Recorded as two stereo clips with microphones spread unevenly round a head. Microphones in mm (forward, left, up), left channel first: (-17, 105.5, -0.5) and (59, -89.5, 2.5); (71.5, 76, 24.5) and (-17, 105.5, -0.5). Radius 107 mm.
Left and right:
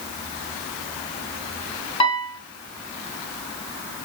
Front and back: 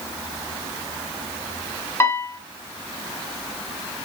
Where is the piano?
55° left, 0.8 m.